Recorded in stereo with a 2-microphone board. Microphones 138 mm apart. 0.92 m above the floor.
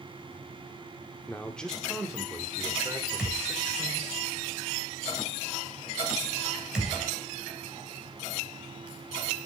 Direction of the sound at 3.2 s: 5° right (ahead or behind).